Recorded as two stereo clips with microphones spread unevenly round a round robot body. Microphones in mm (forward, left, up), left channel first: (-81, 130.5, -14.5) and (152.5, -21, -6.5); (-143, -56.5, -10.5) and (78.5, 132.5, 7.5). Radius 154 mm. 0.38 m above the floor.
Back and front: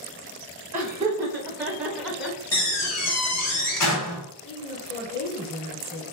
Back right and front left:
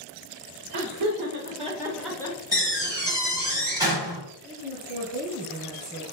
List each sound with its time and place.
0.7 s laughter: 45° left, 1.1 m; by 3.5 s 135° right, 1.3 m
2.5 s a door slam: 120° left, 1.6 m
4.4 s a woman speaking: 15° right, 1.4 m